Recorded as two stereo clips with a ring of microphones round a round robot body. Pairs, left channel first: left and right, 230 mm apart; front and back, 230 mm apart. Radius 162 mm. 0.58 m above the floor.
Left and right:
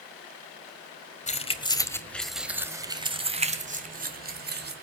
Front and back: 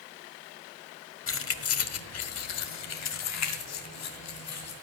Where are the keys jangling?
30° left, 1.9 m; by 4.7 s 45° right, 3 m.